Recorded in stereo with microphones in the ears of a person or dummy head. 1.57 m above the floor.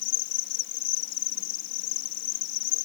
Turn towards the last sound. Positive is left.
turn(degrees=65)  # may be behind; listen again after turning